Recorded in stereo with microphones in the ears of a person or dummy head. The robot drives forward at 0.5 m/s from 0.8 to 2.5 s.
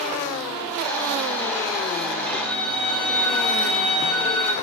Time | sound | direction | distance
2.2 | a violin | 5° left (ahead or behind) | 6.5 m